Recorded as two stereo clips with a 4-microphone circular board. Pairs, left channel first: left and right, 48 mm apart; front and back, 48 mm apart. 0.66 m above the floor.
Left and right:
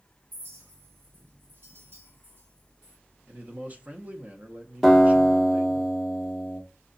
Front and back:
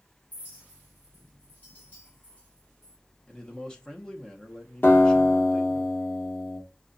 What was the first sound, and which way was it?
A clink, 55° right.